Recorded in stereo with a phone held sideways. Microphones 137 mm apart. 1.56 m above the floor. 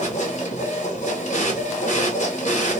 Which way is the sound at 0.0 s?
60° left (ahead or behind).